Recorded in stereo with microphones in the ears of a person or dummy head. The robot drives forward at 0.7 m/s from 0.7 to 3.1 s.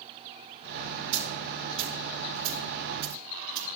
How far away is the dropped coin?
About 2.5 m.